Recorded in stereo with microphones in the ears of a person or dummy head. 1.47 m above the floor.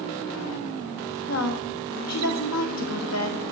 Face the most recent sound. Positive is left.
turn(degrees=70)  # may be behind; listen again after turning